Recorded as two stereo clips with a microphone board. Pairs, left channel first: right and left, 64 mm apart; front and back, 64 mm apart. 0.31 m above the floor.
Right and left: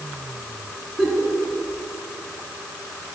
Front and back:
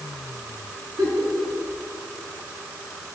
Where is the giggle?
170° left, 3.5 m.